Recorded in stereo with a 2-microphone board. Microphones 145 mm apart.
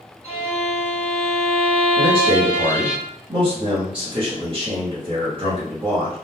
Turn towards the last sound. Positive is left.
turn(degrees=-35)  # may be behind; listen again after turning